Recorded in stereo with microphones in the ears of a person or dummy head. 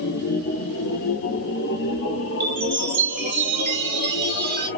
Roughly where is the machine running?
Left.